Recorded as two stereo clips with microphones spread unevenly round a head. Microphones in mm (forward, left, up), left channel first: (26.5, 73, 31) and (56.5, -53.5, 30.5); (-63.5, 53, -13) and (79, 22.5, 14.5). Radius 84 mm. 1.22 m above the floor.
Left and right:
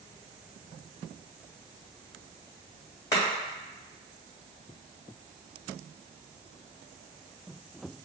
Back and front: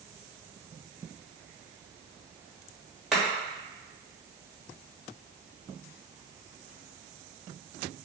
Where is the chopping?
60° left, 1.1 m.